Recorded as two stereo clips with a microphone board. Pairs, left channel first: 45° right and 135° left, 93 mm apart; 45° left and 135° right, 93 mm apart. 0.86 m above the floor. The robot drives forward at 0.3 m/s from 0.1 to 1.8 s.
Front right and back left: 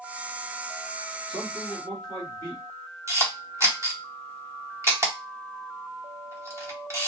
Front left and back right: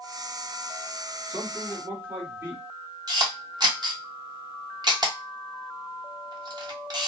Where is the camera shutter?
170° right, 1.1 m.